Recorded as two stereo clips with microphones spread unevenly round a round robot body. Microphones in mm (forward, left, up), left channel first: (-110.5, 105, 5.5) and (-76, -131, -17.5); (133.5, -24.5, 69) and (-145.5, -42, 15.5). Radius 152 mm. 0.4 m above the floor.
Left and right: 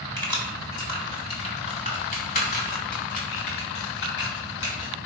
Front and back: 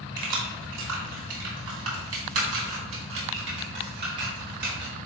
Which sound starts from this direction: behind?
Keys jangling, at 0.2 s.